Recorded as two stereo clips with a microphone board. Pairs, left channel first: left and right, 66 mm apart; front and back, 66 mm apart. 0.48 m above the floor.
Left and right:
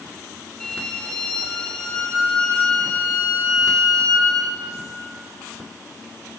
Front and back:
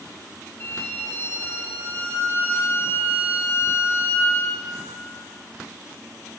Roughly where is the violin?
Ahead.